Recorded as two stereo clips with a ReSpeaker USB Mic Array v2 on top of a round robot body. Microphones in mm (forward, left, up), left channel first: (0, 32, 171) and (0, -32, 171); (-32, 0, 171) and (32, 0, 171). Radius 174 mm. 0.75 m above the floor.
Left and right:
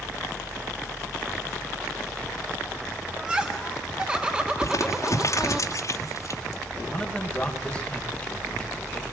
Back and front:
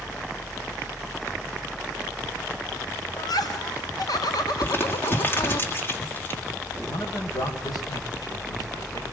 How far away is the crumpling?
About 3 m.